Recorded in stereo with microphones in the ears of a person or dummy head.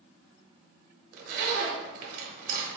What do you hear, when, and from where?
1.1 s a zipper: 45° right (ahead or behind), 0.8 m